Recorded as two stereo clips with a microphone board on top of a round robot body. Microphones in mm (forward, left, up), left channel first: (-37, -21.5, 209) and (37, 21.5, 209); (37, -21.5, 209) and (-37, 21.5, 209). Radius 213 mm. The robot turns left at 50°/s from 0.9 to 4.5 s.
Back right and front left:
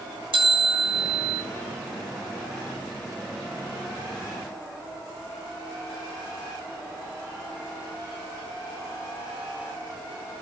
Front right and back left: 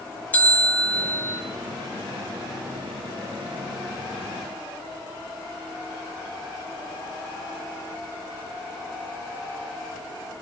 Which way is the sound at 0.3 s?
45° left.